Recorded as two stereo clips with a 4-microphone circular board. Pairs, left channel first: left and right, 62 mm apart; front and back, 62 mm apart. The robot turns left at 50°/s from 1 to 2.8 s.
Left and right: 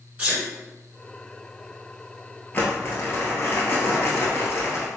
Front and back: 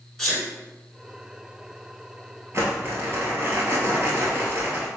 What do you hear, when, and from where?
0.2 s a sneeze: 65° right, 1.6 m
2.5 s crumpling: 145° left, 1.3 m; by 4.9 s 130° left, 1.3 m